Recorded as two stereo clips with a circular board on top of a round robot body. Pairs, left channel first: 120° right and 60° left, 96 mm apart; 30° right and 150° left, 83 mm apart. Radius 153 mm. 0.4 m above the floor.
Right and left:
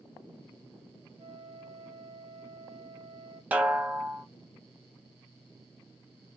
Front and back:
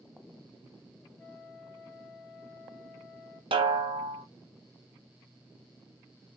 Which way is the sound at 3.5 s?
135° left.